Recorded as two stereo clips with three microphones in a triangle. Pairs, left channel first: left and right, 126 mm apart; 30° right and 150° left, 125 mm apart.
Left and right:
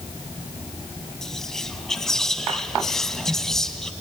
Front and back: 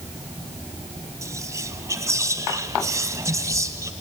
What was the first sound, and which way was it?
Whispering, 170° left.